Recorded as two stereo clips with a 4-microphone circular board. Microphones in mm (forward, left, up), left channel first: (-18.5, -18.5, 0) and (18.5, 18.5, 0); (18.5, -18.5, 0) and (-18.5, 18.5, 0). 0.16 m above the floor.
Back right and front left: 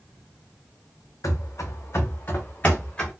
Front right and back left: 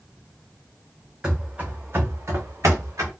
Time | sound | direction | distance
1.2 | running footsteps | 150° right | 0.7 m